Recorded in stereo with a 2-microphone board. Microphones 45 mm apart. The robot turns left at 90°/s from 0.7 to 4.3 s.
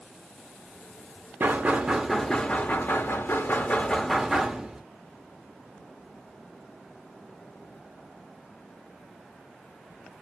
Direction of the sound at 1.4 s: 110° right.